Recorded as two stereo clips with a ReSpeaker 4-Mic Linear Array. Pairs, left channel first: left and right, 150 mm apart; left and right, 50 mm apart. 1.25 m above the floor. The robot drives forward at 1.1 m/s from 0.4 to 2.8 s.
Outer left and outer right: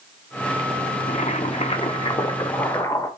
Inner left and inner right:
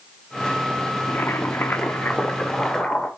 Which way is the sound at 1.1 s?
45° left (ahead or behind).